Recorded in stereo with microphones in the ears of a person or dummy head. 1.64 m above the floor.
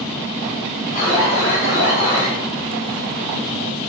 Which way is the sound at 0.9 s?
40° left (ahead or behind).